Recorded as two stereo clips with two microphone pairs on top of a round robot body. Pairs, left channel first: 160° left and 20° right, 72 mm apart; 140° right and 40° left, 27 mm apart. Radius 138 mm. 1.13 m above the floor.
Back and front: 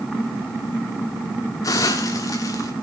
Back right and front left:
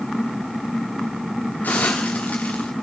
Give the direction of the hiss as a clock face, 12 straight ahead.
5 o'clock.